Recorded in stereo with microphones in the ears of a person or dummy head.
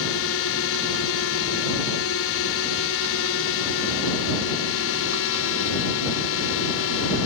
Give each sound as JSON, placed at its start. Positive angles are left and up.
{"t": 0.0, "sound": "a drone", "side_deg": 75}